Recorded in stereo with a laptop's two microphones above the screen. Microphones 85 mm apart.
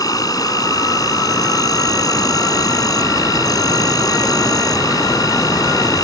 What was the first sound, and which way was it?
An insect, 45° left (ahead or behind).